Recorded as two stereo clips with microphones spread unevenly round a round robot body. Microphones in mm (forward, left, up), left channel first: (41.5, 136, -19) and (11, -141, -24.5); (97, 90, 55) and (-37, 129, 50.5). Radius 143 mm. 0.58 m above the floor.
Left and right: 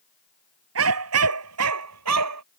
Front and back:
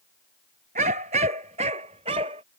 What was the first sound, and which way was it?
A dog barking, 140° right.